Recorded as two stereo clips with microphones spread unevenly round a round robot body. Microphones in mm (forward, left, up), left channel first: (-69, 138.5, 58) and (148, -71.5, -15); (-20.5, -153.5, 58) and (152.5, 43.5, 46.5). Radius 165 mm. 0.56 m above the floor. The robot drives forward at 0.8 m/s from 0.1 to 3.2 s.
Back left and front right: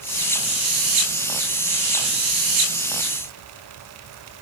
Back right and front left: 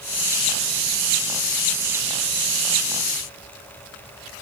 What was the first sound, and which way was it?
Only background noise.